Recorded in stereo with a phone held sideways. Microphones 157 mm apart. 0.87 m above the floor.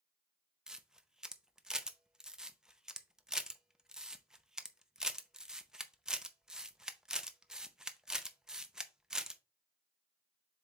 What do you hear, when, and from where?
0.7 s a camera shutter: 5° right (ahead or behind), 0.6 m